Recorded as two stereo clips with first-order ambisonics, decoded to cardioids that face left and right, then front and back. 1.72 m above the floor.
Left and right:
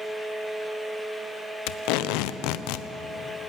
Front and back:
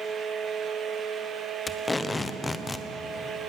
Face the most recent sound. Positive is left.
turn(degrees=75)